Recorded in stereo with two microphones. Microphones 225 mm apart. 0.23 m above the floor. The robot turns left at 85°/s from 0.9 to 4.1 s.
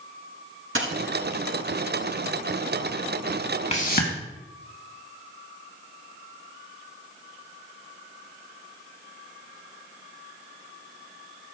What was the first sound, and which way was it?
A dropped coin, 65° right (ahead or behind).